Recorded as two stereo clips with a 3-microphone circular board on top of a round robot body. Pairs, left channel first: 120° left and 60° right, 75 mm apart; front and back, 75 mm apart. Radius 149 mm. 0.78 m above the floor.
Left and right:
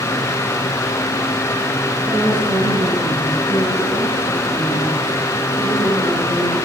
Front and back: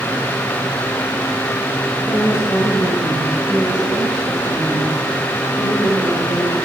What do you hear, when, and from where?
2.1 s a woman speaking: 55° right, 6.5 m